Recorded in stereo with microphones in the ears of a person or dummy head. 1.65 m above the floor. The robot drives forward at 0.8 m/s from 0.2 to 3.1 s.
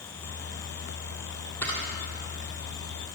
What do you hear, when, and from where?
1.6 s a camera shutter: 10° left (ahead or behind), 1.5 m; by 3.1 s 5° left (ahead or behind), 2.5 m